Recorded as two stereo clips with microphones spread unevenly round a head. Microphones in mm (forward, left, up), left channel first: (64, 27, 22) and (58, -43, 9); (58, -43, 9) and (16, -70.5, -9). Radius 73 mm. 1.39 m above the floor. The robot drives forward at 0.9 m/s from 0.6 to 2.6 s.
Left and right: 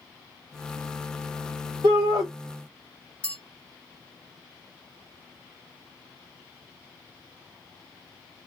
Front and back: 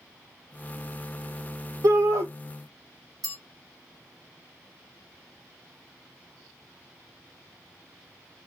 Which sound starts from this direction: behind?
A bell, at 3.2 s.